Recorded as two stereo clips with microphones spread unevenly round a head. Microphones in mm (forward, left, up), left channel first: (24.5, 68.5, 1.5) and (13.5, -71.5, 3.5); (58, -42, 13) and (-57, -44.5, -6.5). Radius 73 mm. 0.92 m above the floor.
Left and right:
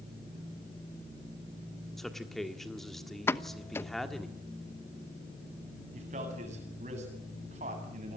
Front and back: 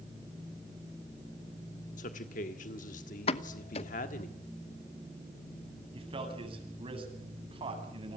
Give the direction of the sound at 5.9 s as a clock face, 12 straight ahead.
5 o'clock.